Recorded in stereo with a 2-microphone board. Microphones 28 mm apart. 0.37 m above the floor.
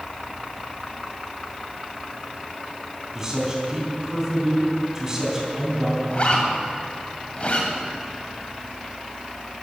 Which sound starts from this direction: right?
A man speaking, at 3.1 s.